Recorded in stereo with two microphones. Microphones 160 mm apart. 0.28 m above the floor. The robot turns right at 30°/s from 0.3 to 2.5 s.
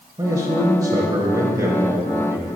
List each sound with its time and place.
0.2 s a man speaking: 20° right (ahead or behind), 1.0 m; by 2.5 s 15° right (ahead or behind), 1.0 m